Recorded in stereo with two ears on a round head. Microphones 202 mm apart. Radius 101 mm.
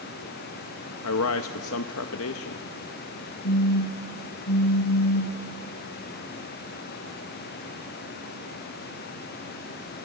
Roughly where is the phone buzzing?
Left.